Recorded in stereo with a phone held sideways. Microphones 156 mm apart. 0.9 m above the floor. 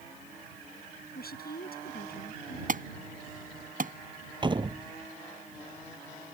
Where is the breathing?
I don't hear breathing.